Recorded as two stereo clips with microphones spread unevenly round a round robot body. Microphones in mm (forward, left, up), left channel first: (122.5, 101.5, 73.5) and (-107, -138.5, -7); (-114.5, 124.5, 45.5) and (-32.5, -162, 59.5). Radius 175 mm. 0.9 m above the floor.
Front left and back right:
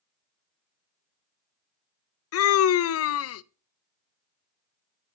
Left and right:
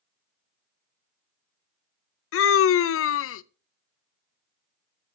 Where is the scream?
95° left, 0.5 m.